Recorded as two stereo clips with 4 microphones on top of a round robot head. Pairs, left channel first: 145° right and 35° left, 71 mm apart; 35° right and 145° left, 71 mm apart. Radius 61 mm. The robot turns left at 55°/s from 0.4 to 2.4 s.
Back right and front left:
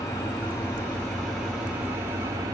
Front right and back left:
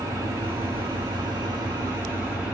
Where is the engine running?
Straight behind, 1.3 m; by 2.5 s 70° left, 1.3 m.